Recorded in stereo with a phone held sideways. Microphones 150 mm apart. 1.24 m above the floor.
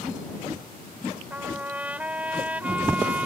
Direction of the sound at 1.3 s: 10° right (ahead or behind).